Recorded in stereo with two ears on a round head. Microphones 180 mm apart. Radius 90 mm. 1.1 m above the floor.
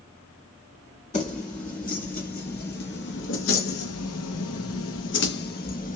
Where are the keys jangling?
35° left (ahead or behind), 2.0 m; by 6.0 s 40° left (ahead or behind), 1.1 m.